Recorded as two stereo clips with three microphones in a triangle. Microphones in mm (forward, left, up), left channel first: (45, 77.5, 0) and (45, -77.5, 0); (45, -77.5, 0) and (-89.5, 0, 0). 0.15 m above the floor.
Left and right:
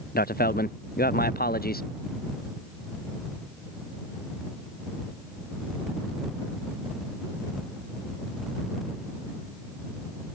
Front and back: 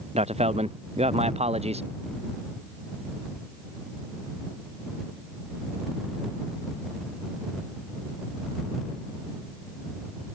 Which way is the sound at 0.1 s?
100° left.